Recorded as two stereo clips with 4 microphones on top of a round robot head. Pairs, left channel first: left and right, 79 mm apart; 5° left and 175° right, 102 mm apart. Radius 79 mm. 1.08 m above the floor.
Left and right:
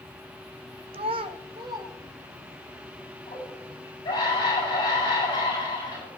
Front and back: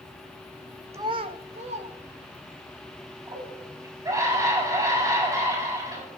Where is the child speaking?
105° right, 0.5 m; by 2.7 s 155° right, 2.5 m.